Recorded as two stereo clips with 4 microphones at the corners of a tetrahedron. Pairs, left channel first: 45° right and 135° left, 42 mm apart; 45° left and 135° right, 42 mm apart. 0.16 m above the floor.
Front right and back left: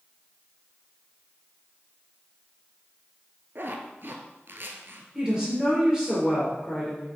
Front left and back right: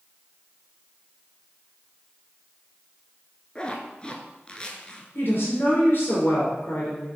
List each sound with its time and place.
3.5 s a zipper: 110° left, 0.9 m
5.2 s a woman speaking: 60° left, 3 m